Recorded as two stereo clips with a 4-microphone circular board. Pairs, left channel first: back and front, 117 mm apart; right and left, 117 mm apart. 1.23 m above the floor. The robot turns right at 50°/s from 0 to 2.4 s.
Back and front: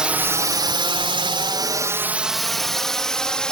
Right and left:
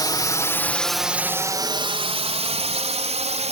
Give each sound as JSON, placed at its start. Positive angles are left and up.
{"t": 0.0, "sound": "a drone", "azimuth_deg": -75}